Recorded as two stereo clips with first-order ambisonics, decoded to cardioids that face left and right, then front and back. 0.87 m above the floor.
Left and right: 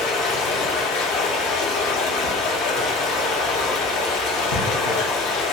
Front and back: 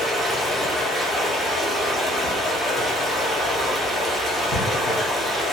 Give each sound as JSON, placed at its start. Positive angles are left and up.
{"t": 0.0, "sound": "running water", "azimuth_deg": 95, "distance_m": 0.7}